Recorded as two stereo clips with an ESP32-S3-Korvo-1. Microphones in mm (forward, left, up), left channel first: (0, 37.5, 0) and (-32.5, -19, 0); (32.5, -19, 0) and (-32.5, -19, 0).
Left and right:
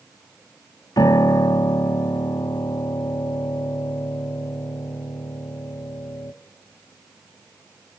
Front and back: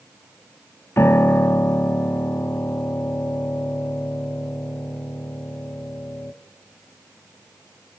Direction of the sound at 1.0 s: 50° left.